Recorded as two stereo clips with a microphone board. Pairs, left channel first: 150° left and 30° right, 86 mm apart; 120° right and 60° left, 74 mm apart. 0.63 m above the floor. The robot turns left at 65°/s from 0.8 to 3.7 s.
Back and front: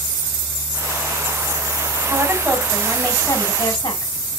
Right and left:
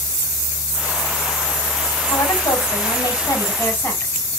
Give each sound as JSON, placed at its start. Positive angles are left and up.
{"t": 2.1, "sound": "a woman speaking", "azimuth_deg": -80, "distance_m": 5.5}